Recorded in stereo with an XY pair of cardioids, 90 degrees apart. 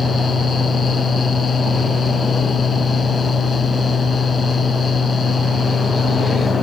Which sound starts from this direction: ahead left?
A fan, at 0.0 s.